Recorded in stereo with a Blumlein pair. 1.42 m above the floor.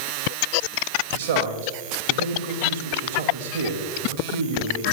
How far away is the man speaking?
About 2.5 m.